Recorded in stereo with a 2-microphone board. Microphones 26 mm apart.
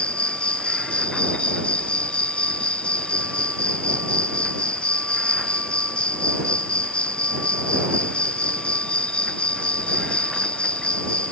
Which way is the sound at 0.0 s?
55° left (ahead or behind).